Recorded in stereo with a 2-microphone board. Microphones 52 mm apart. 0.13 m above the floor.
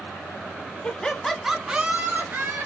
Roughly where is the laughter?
Left.